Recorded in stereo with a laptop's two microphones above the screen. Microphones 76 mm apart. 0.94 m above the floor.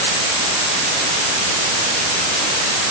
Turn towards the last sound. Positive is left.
No sound to turn to.